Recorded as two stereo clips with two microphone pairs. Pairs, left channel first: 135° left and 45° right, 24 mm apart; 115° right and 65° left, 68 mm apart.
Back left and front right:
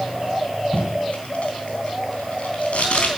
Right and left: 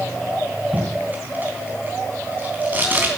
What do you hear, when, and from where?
0.7 s tape being pulled: 125° left, 3.5 m